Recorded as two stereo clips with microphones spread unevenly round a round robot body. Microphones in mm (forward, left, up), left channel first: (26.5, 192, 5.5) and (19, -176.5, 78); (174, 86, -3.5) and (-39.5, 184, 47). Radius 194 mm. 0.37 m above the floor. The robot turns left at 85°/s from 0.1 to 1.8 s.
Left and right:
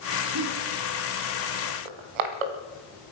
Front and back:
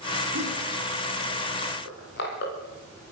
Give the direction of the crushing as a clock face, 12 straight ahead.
3 o'clock.